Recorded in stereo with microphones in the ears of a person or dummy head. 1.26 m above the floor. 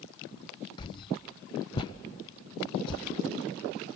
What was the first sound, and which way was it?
A whoosh, 25° left (ahead or behind).